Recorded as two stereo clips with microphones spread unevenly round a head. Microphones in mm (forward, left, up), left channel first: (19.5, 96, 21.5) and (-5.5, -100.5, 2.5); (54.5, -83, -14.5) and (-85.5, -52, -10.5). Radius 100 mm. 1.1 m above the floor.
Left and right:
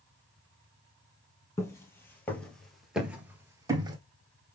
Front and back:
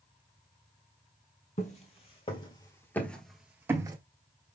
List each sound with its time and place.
1.6 s footsteps: 15° left, 1.6 m; by 4.0 s 160° right, 1.2 m